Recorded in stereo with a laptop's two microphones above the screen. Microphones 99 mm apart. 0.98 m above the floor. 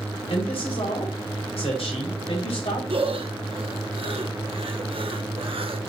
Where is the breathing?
65° right (ahead or behind), 0.7 m.